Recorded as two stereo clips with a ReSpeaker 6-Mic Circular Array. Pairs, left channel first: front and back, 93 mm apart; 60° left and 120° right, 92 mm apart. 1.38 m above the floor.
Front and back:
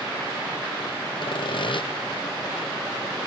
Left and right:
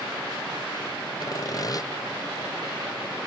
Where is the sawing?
15° left, 0.9 m.